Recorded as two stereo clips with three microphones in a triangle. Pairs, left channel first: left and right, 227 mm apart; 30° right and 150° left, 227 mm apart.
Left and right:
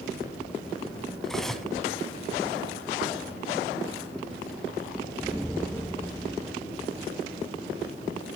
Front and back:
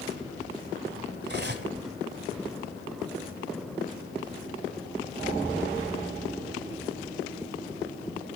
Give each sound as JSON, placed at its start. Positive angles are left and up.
{"t": 1.2, "sound": "cutlery clinking", "azimuth_deg": 180, "distance_m": 1.3}